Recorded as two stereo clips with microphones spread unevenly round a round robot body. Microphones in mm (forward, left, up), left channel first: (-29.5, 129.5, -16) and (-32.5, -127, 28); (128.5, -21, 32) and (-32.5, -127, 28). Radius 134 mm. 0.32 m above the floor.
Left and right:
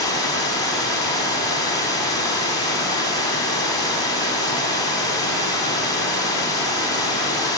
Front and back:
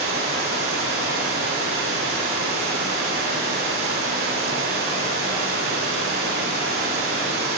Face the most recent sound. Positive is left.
turn(degrees=165)